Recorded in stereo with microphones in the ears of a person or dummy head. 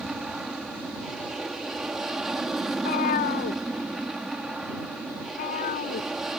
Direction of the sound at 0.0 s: Centre (ahead or behind).